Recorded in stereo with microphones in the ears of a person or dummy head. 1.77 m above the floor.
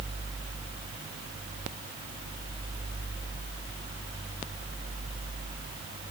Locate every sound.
Only background noise.